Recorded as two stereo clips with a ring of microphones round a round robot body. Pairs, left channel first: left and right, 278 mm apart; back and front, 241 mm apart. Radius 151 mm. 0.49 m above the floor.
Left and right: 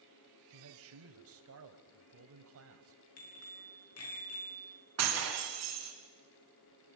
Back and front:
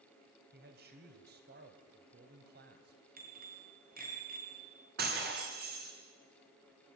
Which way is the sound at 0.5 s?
50° right.